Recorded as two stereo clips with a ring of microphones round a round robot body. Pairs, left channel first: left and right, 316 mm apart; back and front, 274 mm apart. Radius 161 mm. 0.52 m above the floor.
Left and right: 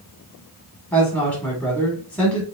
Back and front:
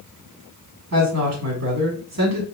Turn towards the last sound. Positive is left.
turn(degrees=15)